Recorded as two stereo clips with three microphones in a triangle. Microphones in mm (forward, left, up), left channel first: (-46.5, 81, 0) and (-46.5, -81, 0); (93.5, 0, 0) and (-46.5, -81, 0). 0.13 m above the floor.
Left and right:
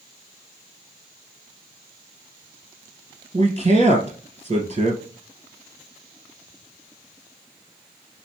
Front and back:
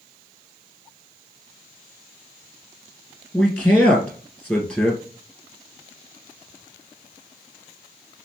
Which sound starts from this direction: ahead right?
A man speaking, at 3.3 s.